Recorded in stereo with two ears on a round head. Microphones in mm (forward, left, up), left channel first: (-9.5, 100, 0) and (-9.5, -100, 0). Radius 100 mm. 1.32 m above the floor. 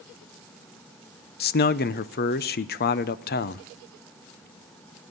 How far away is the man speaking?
About 0.6 m.